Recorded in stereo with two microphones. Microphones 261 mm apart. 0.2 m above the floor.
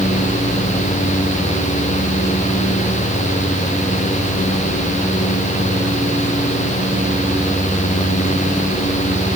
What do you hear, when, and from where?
Only background noise.